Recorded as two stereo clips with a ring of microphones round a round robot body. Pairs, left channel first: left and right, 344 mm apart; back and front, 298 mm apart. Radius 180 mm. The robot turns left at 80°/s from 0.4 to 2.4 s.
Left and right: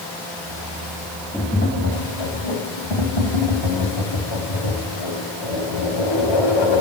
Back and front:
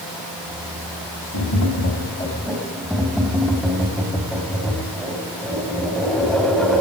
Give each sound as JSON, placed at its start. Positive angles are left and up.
{"t": 1.3, "sound": "tapping", "azimuth_deg": 175, "distance_m": 4.0}